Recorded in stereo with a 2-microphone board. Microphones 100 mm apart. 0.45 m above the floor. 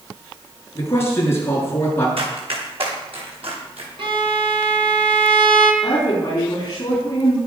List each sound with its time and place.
0.8 s a man speaking: 25° left (ahead or behind), 7 m
2.2 s running footsteps: 65° right (ahead or behind), 7 m; by 3.9 s 70° right (ahead or behind), 8 m
4.0 s a violin: 60° right (ahead or behind), 1.8 m
5.8 s a woman speaking: 35° left (ahead or behind), 4.5 m